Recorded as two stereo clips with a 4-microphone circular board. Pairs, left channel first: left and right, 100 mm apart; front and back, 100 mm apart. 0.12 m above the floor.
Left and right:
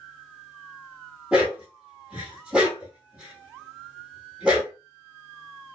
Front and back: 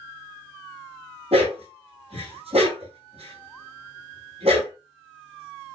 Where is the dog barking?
170° right, 2 m.